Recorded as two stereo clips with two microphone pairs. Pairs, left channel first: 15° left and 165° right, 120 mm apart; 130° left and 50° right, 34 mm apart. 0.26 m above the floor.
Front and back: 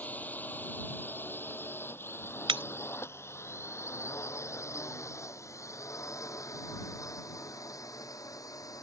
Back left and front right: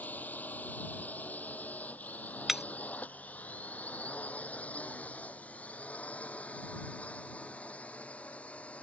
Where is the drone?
90° left; by 8.8 s 75° left.